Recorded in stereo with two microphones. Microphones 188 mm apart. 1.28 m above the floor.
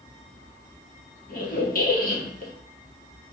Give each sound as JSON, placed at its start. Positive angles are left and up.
{"t": 1.3, "sound": "a squeak", "side_deg": 50, "distance_m": 0.9}